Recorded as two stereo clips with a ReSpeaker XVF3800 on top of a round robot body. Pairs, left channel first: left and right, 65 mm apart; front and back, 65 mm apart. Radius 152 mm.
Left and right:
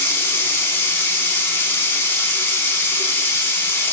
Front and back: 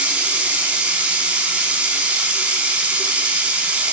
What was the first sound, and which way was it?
Running water, 125° left.